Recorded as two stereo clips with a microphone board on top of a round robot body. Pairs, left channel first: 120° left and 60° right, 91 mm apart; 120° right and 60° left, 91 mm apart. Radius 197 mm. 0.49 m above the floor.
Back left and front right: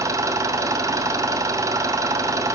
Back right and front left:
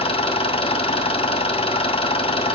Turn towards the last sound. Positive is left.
turn(degrees=-115)